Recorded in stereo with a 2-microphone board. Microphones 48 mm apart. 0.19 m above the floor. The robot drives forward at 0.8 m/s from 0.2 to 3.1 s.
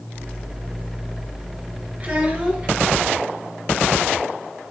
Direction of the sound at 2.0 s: 30° right (ahead or behind).